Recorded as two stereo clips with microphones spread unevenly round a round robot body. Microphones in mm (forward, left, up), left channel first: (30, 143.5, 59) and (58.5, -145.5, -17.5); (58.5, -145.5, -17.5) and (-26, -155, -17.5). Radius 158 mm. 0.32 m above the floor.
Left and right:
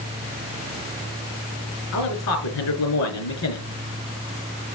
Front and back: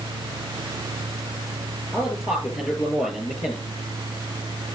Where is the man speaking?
65° left, 5 m.